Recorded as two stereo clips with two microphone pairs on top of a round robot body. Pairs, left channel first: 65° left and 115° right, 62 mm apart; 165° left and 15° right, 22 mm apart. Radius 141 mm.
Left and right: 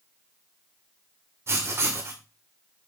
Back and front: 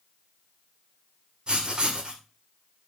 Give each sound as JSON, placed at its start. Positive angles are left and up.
{"t": 1.5, "sound": "writing", "azimuth_deg": -70, "distance_m": 2.0}